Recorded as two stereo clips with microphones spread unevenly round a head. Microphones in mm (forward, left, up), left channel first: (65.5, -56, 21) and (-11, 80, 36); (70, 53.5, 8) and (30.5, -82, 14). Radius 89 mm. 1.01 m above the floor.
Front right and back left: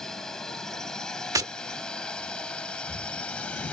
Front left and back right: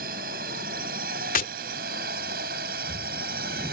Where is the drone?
145° right.